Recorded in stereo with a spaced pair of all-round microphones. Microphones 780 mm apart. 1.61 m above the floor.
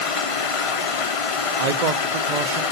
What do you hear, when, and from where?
0.0 s running water: 45° left (ahead or behind), 0.8 m
1.6 s a man speaking: 60° right (ahead or behind), 0.7 m